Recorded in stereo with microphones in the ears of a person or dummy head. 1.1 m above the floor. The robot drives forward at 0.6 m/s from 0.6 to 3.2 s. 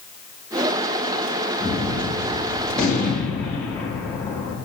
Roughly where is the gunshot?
Centre.